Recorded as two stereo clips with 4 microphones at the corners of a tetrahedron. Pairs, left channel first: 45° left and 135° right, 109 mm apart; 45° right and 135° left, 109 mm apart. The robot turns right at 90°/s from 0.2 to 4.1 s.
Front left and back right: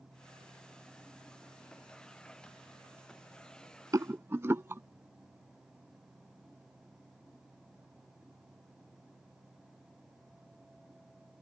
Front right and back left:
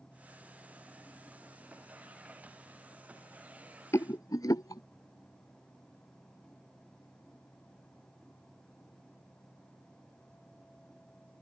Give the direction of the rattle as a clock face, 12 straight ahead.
3 o'clock.